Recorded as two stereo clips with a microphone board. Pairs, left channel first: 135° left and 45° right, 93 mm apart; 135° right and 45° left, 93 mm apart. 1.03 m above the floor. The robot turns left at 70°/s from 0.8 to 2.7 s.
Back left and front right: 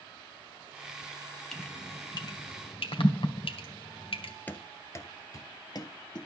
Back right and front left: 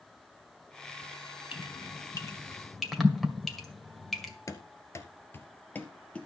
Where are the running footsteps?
165° right, 1.3 m; by 6.3 s 150° left, 1.7 m.